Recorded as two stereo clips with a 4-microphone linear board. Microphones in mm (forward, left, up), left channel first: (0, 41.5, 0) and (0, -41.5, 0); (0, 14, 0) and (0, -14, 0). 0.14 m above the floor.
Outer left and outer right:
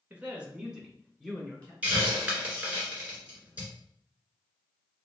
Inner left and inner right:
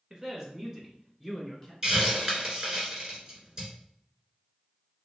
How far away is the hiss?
About 1.6 m.